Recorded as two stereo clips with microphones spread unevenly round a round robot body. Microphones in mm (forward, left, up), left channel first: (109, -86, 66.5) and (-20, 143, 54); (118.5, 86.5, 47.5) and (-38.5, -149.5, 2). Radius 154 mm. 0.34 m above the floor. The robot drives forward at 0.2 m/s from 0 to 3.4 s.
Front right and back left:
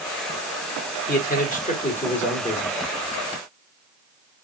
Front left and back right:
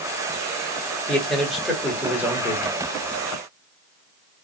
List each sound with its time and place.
1.1 s a man speaking: 45° right, 1.1 m; by 2.8 s 90° right, 1.0 m